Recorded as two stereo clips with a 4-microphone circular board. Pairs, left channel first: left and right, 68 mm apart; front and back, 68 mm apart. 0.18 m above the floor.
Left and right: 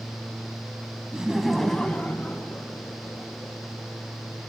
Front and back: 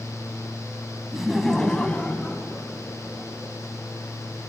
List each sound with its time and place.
1.1 s laughter: 115° right, 1.0 m; by 3.6 s 50° left, 2 m